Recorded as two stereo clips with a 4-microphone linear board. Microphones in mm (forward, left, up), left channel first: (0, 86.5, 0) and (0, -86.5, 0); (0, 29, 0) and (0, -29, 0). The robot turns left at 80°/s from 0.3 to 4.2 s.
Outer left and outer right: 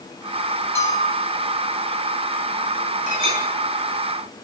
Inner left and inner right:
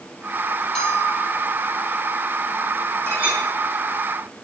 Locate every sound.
0.8 s a bell: 165° left, 3.5 m; by 1.7 s 90° left, 3.5 m
3.1 s a clink: 45° right (ahead or behind), 7.5 m; by 3.4 s 20° right (ahead or behind), 7.5 m